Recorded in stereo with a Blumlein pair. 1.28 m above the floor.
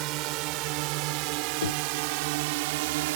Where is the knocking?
65° left.